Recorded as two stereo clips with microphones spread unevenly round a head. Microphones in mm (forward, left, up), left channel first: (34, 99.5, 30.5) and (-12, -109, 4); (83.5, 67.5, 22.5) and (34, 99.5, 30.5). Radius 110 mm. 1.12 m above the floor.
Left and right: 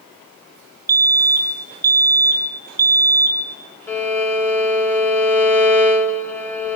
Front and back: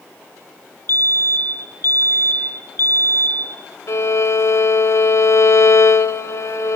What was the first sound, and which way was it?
A fire alarm, 35° right.